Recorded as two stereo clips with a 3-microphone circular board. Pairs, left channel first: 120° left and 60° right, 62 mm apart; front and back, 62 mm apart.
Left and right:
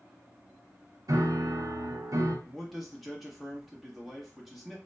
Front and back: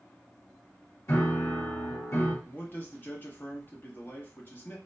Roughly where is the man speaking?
Ahead left.